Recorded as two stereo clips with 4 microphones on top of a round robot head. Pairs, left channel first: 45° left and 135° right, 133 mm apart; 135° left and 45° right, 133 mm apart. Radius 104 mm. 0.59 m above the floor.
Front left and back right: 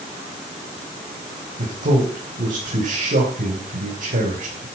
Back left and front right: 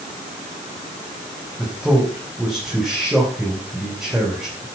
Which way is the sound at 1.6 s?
130° right.